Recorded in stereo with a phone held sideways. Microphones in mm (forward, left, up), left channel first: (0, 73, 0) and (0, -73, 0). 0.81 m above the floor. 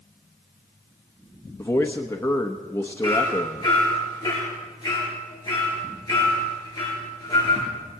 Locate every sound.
1.6 s a man speaking: 15° left (ahead or behind), 1.0 m
3.0 s hammering: 25° left (ahead or behind), 6 m